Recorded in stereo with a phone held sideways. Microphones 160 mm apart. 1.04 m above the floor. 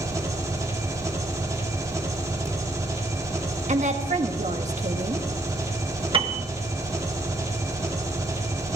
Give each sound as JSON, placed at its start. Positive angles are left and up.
{"t": 0.0, "sound": "an engine running", "side_deg": -20, "distance_m": 3.0}
{"t": 3.7, "sound": "a woman speaking", "side_deg": -45, "distance_m": 1.5}
{"t": 6.1, "sound": "a piano", "side_deg": -35, "distance_m": 1.4}